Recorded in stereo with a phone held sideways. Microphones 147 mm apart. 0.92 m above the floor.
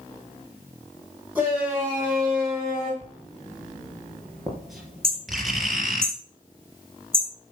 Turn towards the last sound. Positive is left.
turn(degrees=-35)  # may be behind; listen again after turning